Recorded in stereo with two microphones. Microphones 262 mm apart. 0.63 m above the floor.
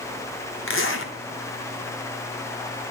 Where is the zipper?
50° left (ahead or behind), 1.1 m.